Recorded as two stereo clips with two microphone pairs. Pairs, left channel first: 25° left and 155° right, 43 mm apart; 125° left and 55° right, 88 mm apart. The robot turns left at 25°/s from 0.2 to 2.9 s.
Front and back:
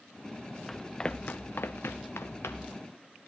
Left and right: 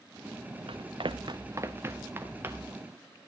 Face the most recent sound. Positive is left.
turn(degrees=0)